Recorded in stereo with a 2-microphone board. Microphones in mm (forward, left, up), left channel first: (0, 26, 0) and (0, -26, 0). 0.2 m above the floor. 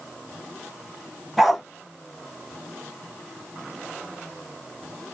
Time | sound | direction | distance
1.4 | a dog barking | 5° right (ahead or behind) | 0.9 m